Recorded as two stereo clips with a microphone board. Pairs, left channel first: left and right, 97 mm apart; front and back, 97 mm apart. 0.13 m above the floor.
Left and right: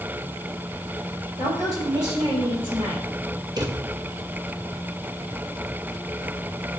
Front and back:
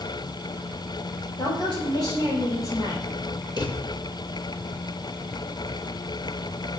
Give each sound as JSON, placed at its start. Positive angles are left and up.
{"t": 1.4, "sound": "a woman speaking", "azimuth_deg": -40, "distance_m": 3.5}
{"t": 3.6, "sound": "a drawer", "azimuth_deg": -45, "distance_m": 1.0}